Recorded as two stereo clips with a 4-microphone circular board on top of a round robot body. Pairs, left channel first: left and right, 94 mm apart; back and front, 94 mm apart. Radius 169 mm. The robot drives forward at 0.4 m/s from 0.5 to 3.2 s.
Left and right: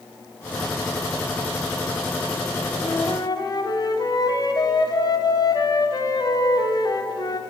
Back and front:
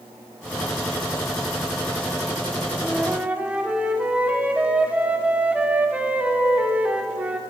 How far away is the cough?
No cough in this recording.